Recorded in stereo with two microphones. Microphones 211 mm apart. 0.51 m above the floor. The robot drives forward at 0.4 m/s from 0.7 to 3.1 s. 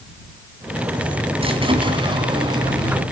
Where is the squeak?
25° right (ahead or behind), 1.7 m; by 3.0 s 20° right (ahead or behind), 2.5 m.